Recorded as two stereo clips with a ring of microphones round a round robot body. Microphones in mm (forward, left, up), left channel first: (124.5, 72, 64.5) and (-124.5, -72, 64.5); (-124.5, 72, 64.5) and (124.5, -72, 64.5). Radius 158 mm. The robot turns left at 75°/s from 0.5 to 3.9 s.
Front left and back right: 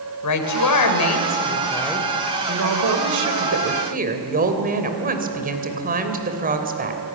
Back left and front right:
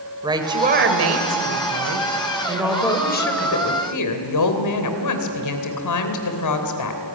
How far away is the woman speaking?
About 3 m.